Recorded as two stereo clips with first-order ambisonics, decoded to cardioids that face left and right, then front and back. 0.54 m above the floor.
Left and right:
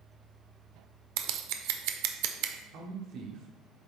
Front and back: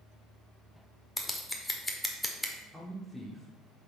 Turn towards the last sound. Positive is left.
turn(degrees=-100)